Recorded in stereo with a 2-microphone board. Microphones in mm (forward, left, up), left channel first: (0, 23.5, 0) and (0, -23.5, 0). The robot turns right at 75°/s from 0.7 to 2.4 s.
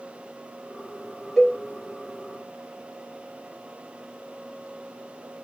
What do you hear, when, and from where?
1.4 s a cowbell: 5° left (ahead or behind), 1.2 m; by 1.6 s 10° right (ahead or behind), 1.2 m